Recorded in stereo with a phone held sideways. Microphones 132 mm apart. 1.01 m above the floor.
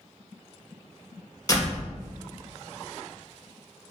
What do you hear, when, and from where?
1.5 s a door slam: 25° left (ahead or behind), 2.5 m